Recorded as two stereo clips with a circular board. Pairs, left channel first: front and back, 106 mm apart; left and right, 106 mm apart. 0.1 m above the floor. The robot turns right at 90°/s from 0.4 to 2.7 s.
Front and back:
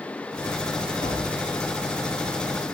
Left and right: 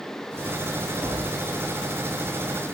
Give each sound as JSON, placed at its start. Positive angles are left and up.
{"t": 1.0, "sound": "tapping", "azimuth_deg": -15, "distance_m": 7.0}